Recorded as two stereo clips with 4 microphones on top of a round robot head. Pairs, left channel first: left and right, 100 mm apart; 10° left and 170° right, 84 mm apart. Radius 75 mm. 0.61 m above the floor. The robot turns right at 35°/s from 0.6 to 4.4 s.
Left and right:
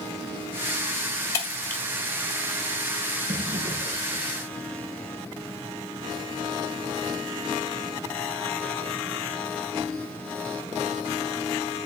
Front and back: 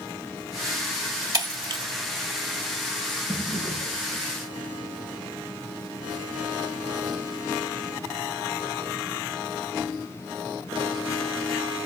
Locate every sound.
1.3 s breaking glass: 155° left, 1.6 m; by 1.8 s 170° left, 1.6 m
3.3 s a drawer: 75° right, 3.5 m; by 4.3 s 40° right, 3.5 m